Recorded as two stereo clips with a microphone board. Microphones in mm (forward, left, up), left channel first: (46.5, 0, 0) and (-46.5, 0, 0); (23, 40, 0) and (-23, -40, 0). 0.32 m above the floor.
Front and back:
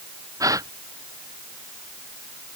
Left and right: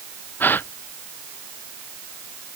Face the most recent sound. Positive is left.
turn(degrees=130)